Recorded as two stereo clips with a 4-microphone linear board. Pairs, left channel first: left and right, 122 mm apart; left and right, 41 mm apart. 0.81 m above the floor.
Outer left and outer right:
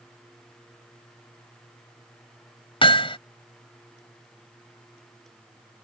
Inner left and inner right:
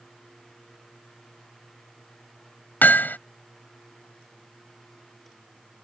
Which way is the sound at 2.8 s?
45° left (ahead or behind).